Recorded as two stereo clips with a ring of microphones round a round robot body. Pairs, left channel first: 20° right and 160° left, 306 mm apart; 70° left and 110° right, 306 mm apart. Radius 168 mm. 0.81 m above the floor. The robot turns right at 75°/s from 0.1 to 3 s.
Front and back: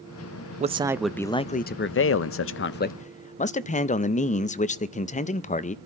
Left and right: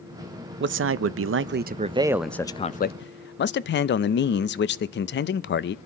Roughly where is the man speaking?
Behind right.